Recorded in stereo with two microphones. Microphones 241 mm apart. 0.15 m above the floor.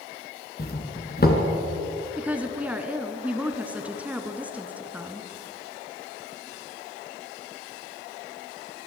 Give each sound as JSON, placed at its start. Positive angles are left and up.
{"t": 0.6, "sound": "a doorbell", "side_deg": 40, "distance_m": 2.5}
{"t": 2.2, "sound": "a woman speaking", "side_deg": -5, "distance_m": 2.0}